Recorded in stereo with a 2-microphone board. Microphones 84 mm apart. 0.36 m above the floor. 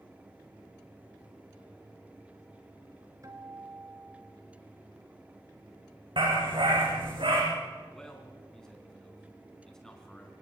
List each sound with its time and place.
3.2 s a guitar: 45° right (ahead or behind), 2 m
6.2 s a dog barking: 85° right, 5.5 m
7.9 s a man speaking: 5° left (ahead or behind), 4 m